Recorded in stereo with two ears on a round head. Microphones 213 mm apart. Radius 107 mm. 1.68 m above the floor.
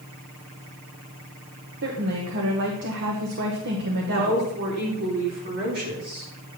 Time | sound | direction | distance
1.8 | a woman speaking | 50° right (ahead or behind) | 1.1 m
4.1 | a woman speaking | 40° right (ahead or behind) | 4 m